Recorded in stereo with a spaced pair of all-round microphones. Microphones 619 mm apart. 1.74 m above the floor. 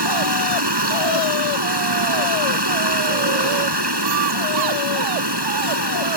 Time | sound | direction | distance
0.0 | running water | 40° right (ahead or behind) | ?